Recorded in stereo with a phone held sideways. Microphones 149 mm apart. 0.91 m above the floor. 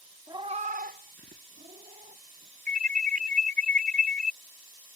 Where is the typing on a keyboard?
I don't hear typing on a keyboard.